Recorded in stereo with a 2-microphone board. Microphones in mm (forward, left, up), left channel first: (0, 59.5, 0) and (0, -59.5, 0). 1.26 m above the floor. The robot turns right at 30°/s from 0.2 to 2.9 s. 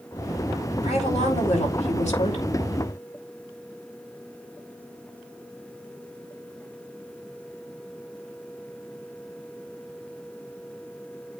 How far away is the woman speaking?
About 4.5 m.